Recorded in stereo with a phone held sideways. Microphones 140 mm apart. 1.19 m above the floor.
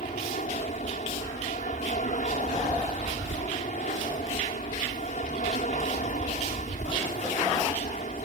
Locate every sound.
0.0 s an aircraft: 65° left (ahead or behind)